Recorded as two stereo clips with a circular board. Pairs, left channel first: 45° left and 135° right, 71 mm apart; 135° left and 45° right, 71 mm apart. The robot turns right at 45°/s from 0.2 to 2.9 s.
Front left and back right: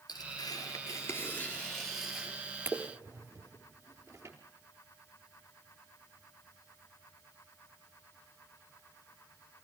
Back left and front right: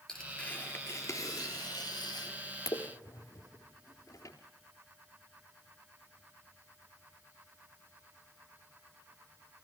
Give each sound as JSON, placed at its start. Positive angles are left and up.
{"t": 0.1, "sound": "tearing paper", "azimuth_deg": 50, "distance_m": 3.5}